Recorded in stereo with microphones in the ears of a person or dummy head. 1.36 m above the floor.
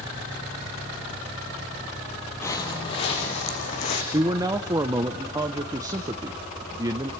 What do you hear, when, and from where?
2.4 s footsteps: 15° left (ahead or behind), 1.6 m; by 4.0 s 50° left (ahead or behind), 3.5 m
4.1 s a man speaking: 15° right (ahead or behind), 0.7 m